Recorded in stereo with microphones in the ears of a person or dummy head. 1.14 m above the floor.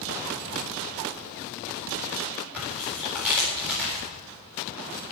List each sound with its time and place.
2.5 s tearing paper: 10° right (ahead or behind), 8 m